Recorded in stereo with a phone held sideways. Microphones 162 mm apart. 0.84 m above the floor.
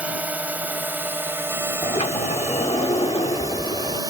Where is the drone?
10° right (ahead or behind); by 4.1 s 25° right (ahead or behind).